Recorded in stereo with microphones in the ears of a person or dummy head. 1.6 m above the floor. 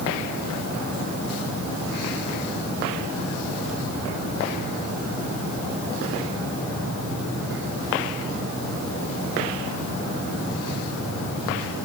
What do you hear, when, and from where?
Only background noise.